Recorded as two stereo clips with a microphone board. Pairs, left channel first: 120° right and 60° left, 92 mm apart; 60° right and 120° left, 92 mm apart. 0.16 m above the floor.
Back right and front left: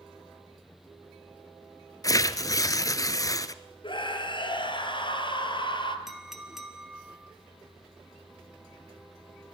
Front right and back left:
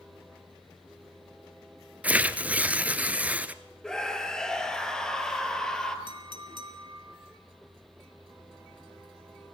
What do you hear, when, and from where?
2.0 s tearing paper: 165° right, 0.9 m
3.8 s a scream: 145° right, 3 m
6.1 s a clink: 145° left, 2 m